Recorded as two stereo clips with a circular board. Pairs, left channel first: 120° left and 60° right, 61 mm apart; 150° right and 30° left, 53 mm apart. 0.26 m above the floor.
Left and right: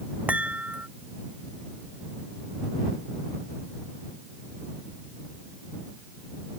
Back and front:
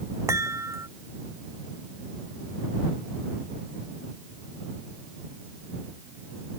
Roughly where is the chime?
Ahead.